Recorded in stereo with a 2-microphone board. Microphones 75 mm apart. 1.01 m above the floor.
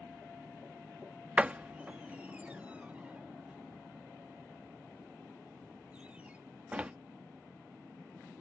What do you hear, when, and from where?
1.4 s a door slam: 20° right (ahead or behind)